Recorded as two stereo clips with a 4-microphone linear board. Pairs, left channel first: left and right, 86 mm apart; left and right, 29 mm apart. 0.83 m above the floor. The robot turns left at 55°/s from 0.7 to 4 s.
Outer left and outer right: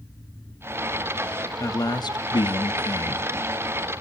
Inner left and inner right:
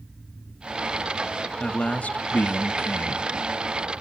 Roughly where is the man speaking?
Behind left.